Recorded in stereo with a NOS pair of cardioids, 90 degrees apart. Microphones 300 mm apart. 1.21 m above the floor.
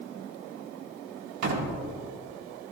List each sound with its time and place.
1.4 s a door slam: 60° right, 2 m